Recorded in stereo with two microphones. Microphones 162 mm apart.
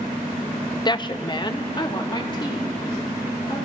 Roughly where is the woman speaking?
Left.